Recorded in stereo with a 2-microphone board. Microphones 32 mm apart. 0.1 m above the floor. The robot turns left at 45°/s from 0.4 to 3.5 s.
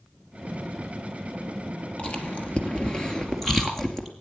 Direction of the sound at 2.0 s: 45° left (ahead or behind).